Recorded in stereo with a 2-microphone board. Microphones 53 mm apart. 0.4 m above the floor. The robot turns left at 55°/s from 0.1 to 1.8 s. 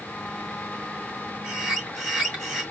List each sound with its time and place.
1.4 s a bird: 15° right (ahead or behind), 1.8 m; by 2.6 s centre (ahead or behind), 1.8 m